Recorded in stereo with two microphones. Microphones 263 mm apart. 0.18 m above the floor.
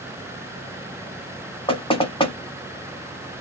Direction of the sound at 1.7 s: 20° left (ahead or behind).